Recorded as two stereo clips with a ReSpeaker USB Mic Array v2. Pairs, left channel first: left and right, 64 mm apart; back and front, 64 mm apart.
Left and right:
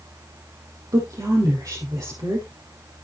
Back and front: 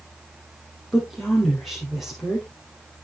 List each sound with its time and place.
0.9 s a woman speaking: 90° right, 4.5 m